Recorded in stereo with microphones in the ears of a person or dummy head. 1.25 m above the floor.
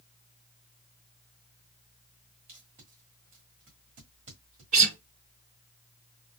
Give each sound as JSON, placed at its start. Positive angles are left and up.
{"t": 2.5, "sound": "tape being pulled", "side_deg": -40, "distance_m": 1.4}
{"t": 4.7, "sound": "a guitar", "side_deg": -45, "distance_m": 2.5}